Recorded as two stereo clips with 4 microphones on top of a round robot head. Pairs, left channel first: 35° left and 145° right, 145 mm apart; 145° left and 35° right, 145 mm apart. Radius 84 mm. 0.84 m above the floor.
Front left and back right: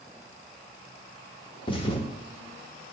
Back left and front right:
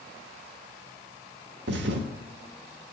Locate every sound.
1.7 s a thud: 25° right, 0.9 m